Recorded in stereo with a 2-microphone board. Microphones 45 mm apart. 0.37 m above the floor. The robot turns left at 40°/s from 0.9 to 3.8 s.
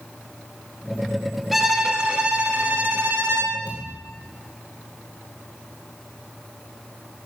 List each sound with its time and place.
1.5 s a violin: straight ahead, 2 m; by 3.6 s 80° right, 2 m
3.7 s a thud: 25° right (ahead or behind), 5 m; by 4.0 s 30° right (ahead or behind), 5 m